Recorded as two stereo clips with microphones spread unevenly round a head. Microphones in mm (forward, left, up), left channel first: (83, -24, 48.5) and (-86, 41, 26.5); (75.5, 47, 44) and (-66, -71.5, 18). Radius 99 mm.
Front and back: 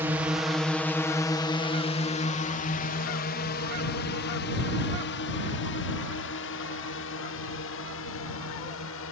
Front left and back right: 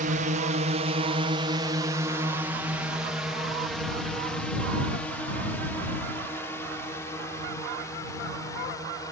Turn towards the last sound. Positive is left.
turn(degrees=-30)